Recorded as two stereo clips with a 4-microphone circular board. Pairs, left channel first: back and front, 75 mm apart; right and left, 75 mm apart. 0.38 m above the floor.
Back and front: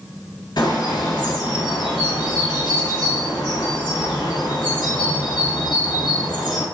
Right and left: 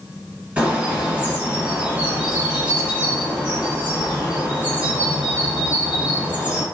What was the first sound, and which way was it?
A bird, 165° left.